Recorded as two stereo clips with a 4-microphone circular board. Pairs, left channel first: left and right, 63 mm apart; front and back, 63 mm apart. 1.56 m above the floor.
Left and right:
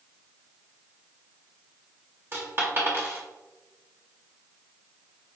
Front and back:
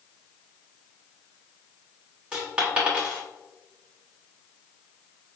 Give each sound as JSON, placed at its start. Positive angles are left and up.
{"t": 2.3, "sound": "a dropped coin", "azimuth_deg": -115, "distance_m": 1.1}